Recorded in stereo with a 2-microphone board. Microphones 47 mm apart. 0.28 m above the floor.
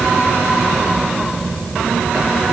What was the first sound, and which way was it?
Only background noise.